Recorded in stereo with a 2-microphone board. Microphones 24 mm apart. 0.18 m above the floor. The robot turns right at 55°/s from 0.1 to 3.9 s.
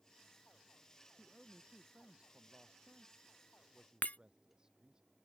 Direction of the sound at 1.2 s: Straight behind.